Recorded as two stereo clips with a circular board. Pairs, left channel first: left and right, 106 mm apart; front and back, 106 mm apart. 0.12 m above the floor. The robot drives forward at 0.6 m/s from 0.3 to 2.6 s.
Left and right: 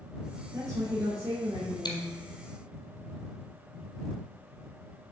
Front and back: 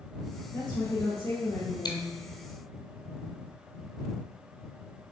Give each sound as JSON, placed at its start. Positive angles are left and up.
{"t": 0.5, "sound": "a woman speaking", "azimuth_deg": -40, "distance_m": 2.5}
{"t": 1.9, "sound": "chewing", "azimuth_deg": 45, "distance_m": 0.9}